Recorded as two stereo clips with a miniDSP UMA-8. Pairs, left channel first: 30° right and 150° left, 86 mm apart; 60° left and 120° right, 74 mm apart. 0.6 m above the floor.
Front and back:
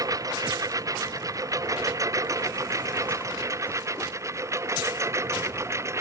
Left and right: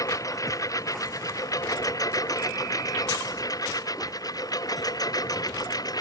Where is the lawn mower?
100° left; by 6.0 s 95° left.